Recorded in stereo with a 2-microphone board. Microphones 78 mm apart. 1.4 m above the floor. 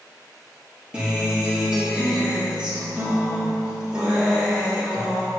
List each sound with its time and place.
0.9 s a guitar: 15° right (ahead or behind), 2 m